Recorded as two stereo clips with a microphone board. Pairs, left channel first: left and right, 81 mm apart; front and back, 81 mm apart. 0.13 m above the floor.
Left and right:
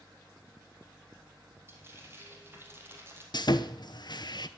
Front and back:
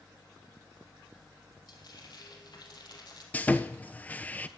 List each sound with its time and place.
1.7 s frying: 30° right, 2.5 m
3.3 s sawing: 70° left, 0.7 m